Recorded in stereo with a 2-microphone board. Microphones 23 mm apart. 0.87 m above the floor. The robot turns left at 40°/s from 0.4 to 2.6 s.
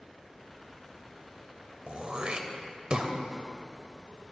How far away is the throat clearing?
About 0.8 m.